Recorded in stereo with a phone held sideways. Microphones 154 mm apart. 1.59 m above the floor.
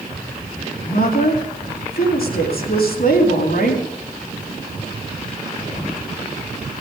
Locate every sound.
0.8 s a woman speaking: 80° left, 3 m